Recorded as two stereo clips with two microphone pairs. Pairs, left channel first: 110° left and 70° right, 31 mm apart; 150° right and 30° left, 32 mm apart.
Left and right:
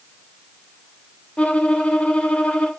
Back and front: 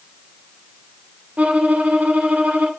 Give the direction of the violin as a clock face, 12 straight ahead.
10 o'clock.